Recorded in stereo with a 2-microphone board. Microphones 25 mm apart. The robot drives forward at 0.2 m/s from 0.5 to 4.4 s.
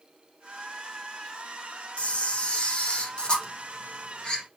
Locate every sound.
2.0 s a camera shutter: 55° left (ahead or behind), 0.7 m; by 4.4 s 35° left (ahead or behind), 1.0 m